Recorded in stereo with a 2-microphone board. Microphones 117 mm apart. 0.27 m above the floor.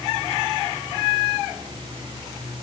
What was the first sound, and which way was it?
Only background noise.